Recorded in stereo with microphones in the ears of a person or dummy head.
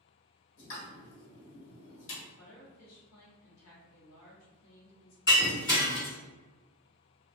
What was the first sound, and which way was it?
A pop, 70° left (ahead or behind).